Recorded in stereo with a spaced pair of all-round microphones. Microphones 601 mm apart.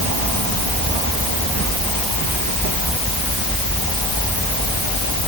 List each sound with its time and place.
Only background noise.